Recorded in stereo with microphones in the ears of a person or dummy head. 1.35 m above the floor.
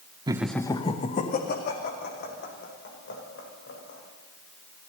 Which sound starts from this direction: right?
Laughter, at 0.3 s.